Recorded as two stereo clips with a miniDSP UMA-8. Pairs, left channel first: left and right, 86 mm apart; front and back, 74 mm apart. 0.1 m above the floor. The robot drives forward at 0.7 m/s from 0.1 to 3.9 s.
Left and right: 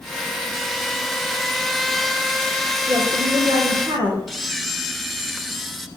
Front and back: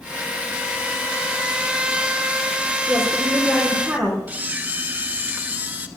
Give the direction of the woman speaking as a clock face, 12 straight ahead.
3 o'clock.